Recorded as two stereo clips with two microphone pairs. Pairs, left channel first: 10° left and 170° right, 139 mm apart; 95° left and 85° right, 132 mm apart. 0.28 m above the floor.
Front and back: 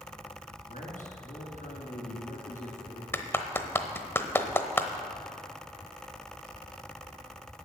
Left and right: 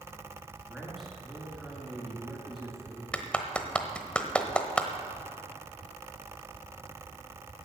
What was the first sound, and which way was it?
A man speaking, 5° left.